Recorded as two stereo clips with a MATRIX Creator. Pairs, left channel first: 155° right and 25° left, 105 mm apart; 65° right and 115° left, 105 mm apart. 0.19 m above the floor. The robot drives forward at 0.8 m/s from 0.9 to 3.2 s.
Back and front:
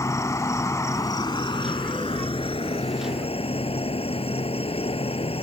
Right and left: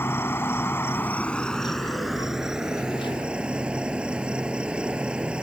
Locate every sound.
0.0 s an insect: 120° right; by 5.5 s 165° right